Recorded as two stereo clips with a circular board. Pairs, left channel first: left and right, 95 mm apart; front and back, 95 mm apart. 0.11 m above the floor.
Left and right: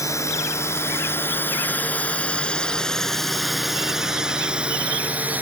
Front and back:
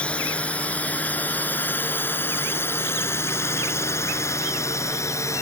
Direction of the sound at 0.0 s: 70° left.